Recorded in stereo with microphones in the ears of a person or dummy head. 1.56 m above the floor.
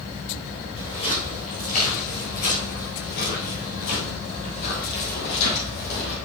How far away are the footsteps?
About 2 m.